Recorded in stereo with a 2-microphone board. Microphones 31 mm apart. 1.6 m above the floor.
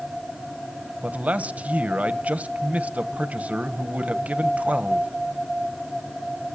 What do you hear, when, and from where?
1.0 s a man speaking: 50° right (ahead or behind), 1.1 m